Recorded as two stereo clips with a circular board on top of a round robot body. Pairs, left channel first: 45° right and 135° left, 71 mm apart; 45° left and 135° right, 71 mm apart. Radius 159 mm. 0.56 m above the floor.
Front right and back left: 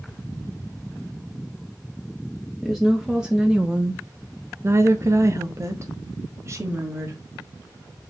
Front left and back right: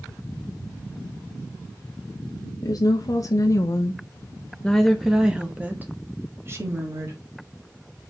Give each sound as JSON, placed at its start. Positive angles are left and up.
{"t": 2.6, "sound": "a woman speaking", "azimuth_deg": 45, "distance_m": 1.4}